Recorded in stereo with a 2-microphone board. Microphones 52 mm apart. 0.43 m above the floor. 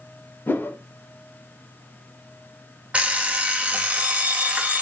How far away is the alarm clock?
About 0.6 m.